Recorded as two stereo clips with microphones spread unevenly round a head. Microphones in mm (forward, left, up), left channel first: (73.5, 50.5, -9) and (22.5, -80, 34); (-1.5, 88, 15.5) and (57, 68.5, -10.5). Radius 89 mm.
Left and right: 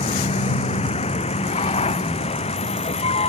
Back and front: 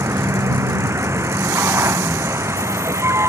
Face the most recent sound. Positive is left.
turn(degrees=25)